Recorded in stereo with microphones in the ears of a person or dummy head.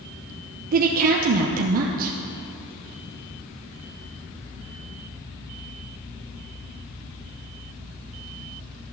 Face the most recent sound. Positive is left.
turn(degrees=-45)  # may be behind; listen again after turning